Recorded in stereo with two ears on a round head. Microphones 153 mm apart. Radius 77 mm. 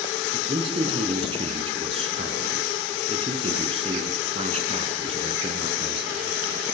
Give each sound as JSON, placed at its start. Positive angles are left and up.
{"t": 0.3, "sound": "a man speaking", "side_deg": -35, "distance_m": 4.5}